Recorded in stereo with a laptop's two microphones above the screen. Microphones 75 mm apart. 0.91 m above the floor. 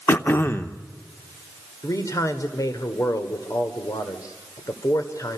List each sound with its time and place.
0.1 s throat clearing: 30° left (ahead or behind), 0.8 m
1.8 s a man speaking: 45° left (ahead or behind), 2.5 m